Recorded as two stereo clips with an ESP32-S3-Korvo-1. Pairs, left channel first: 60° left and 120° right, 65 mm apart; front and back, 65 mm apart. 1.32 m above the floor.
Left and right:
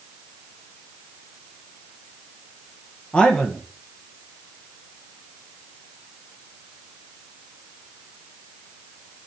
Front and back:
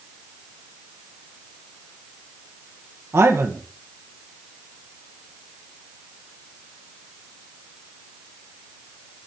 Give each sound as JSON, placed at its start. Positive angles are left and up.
{"t": 3.1, "sound": "a man speaking", "azimuth_deg": 130, "distance_m": 1.0}